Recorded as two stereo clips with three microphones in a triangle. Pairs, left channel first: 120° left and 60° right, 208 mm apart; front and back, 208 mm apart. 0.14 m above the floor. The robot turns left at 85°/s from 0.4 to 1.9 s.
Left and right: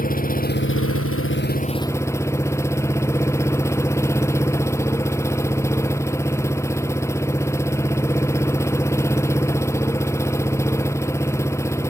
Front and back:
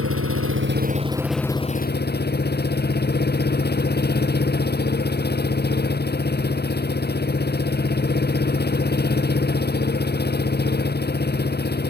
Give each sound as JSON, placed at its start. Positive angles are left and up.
{"t": 0.0, "sound": "an engine running", "azimuth_deg": 170}